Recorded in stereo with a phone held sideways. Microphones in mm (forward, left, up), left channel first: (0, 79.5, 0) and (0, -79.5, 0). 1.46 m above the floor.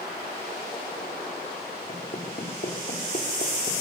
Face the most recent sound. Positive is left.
turn(degrees=50)  # may be behind; listen again after turning